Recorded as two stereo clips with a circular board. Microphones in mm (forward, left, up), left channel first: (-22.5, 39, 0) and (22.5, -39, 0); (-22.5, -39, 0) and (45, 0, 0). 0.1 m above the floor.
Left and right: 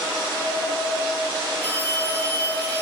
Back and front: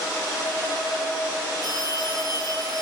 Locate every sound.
1.6 s a phone ringing: 170° right, 3.5 m